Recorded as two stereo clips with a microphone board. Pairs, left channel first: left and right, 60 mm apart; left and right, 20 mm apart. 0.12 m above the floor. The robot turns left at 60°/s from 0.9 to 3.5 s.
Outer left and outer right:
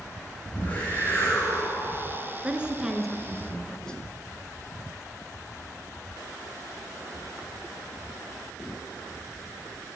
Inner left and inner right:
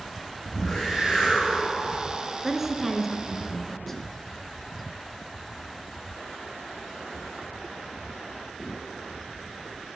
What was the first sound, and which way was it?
A whoosh, 155° left.